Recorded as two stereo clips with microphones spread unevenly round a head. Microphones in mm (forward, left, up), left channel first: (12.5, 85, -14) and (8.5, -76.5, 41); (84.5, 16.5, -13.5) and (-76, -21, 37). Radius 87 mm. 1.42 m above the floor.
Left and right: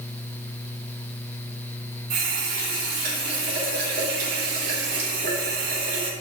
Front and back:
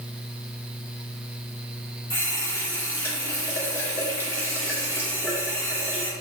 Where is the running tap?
70° right, 2.5 m.